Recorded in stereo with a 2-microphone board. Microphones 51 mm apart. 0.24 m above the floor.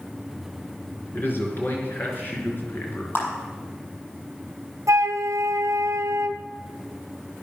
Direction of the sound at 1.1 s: 40° left (ahead or behind).